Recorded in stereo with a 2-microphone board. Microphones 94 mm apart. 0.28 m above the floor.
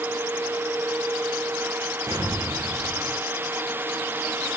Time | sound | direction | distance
2.1 | an explosion | 40° right (ahead or behind) | 10 m